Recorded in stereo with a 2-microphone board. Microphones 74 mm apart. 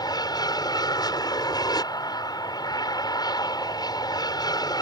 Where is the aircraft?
65° left (ahead or behind).